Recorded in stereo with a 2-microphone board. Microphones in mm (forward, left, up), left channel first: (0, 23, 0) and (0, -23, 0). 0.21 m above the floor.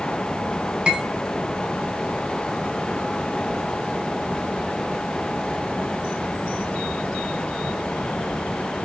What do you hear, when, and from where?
0.9 s cutlery clinking: 20° right (ahead or behind), 0.8 m